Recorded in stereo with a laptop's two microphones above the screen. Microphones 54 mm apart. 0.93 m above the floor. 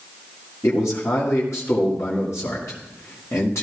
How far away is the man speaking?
About 1.9 m.